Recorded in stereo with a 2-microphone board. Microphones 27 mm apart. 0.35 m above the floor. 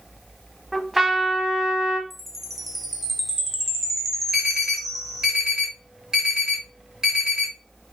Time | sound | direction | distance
0.7 | a trumpet | 5° right (ahead or behind) | 0.7 m
2.1 | a chime | centre (ahead or behind) | 0.6 m
4.3 | an alarm | 25° right (ahead or behind) | 1.8 m